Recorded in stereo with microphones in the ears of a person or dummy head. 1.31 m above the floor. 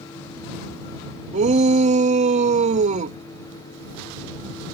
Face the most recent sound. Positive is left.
turn(degrees=-40)  # may be behind; listen again after turning